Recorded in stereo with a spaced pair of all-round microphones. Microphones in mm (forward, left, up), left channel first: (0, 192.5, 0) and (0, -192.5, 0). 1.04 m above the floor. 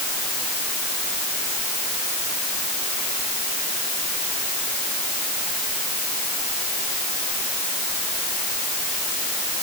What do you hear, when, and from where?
Only background noise.